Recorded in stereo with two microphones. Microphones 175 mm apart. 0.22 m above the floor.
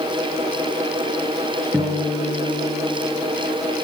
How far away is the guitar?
About 4.5 m.